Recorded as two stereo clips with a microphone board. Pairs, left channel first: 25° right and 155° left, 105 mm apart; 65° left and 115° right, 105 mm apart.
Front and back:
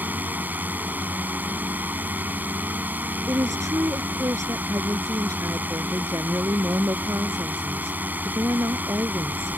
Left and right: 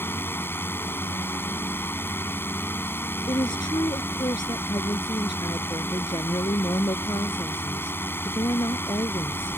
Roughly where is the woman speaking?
Left.